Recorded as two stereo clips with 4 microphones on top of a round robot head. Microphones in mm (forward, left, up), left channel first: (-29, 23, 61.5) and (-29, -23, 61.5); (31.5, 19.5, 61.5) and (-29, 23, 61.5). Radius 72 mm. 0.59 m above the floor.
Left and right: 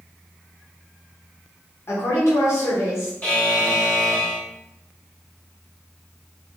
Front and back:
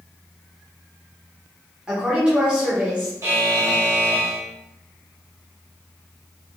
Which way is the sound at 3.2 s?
140° left.